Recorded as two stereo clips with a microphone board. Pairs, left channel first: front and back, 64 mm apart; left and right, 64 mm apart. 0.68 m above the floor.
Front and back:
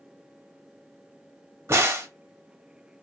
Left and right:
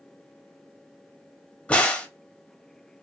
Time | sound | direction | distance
1.7 | a crack | 155° left | 0.9 m